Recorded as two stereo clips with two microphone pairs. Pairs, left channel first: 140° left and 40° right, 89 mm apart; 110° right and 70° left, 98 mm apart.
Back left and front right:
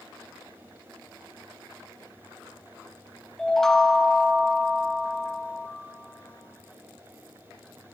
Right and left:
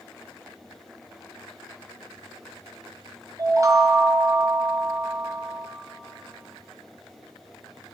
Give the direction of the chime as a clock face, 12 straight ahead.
10 o'clock.